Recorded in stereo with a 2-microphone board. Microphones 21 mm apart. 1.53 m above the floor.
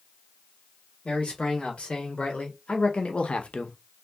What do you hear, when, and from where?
1.1 s a man speaking: 65° left (ahead or behind), 1.9 m; by 3.8 s 60° left (ahead or behind), 0.6 m